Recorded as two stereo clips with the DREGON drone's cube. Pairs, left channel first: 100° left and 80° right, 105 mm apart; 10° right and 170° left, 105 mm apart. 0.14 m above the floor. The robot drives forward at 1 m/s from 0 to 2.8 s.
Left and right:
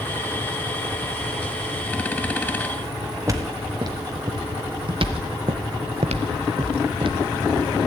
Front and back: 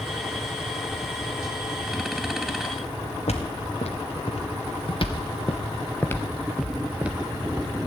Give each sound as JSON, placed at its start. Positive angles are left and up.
{"t": 3.3, "sound": "footsteps", "azimuth_deg": -20, "distance_m": 2.0}